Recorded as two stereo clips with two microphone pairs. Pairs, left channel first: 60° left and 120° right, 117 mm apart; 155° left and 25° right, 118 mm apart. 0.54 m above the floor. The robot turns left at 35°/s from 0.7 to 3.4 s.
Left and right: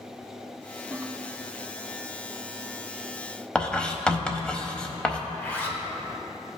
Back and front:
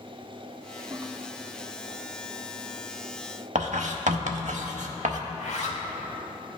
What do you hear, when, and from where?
0.9 s a toilet flushing: 60° right, 0.6 m; by 1.1 s 65° right, 0.6 m
3.5 s writing: 25° right, 0.7 m
5.3 s a zipper: 135° left, 1.1 m